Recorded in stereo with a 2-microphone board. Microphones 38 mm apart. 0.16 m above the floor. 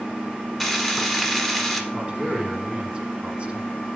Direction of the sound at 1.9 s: 30° right (ahead or behind).